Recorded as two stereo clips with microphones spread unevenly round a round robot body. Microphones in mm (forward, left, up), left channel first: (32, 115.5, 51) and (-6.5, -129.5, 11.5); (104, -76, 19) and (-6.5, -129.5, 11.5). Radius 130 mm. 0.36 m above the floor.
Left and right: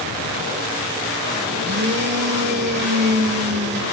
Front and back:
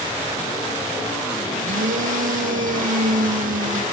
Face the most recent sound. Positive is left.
turn(degrees=-150)